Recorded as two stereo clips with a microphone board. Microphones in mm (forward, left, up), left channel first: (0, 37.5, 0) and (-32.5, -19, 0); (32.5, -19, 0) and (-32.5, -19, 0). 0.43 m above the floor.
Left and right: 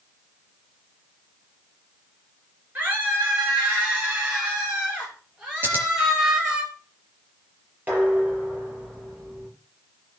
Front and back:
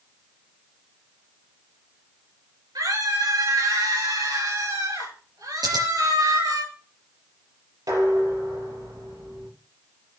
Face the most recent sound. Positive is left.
turn(degrees=175)